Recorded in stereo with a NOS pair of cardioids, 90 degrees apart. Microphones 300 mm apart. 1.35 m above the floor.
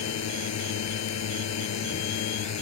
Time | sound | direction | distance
0.0 | a drone | 60° left | ?